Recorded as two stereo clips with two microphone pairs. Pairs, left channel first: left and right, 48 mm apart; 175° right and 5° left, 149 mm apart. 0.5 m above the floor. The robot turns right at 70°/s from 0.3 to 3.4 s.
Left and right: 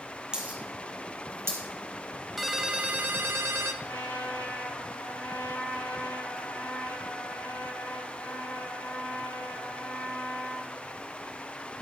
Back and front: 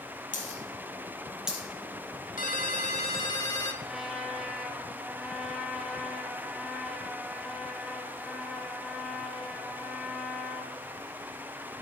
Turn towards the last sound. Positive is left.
turn(degrees=90)